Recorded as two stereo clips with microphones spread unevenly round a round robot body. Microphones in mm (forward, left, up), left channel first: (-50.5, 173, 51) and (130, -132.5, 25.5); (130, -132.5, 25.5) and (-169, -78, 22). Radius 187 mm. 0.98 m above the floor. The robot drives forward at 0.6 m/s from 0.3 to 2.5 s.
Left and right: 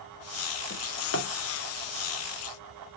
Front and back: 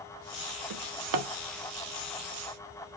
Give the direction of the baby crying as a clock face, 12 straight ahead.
I don't hear a baby crying.